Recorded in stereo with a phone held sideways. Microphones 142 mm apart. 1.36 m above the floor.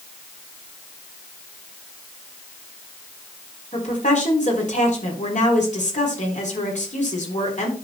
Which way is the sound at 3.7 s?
60° left (ahead or behind).